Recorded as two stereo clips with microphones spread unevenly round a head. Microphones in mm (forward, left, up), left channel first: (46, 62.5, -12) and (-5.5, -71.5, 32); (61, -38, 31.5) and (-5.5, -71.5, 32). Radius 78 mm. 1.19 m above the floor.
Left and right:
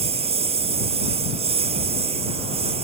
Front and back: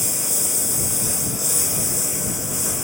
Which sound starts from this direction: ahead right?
A lawn mower, at 0.0 s.